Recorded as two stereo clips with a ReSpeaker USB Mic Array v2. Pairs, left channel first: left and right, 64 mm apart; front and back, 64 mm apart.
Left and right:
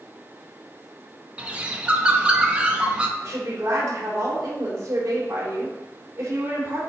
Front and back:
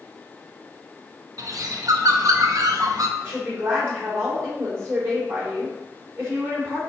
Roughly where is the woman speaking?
Behind right.